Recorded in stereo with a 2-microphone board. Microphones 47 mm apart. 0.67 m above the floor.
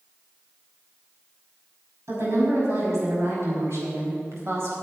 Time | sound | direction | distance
2.1 | a woman speaking | 70° right (ahead or behind) | 5.5 m